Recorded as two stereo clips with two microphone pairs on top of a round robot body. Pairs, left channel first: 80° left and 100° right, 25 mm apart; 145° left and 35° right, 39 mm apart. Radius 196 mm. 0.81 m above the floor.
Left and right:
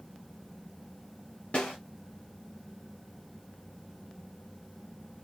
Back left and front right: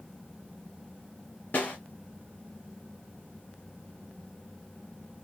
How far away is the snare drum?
About 1.0 m.